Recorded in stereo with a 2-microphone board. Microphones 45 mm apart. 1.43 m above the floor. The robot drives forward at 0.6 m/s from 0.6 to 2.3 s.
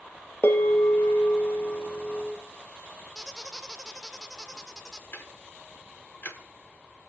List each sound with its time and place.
0.4 s a bell: 55° left (ahead or behind), 1.0 m; by 2.4 s 35° left (ahead or behind), 1.3 m
3.1 s a squeak: 15° left (ahead or behind), 0.5 m
5.1 s ticking: 60° left (ahead or behind), 1.3 m